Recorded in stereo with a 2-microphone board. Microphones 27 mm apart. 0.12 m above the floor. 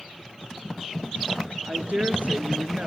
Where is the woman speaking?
50° right (ahead or behind), 2.0 m; by 2.9 s 45° right (ahead or behind), 1.7 m.